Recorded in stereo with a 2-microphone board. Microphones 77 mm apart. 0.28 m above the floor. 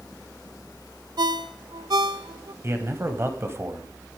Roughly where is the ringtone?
Right.